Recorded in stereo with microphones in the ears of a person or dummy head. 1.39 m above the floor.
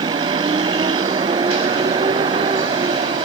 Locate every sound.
0.0 s a vehicle: 20° right (ahead or behind)